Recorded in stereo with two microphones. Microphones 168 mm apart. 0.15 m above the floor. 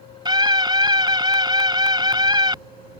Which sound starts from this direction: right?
A scream, at 0.2 s.